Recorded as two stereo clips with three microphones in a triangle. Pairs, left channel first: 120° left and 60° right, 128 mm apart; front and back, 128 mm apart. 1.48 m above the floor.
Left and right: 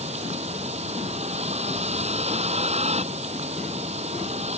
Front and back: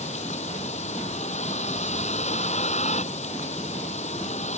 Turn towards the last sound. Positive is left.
turn(degrees=-25)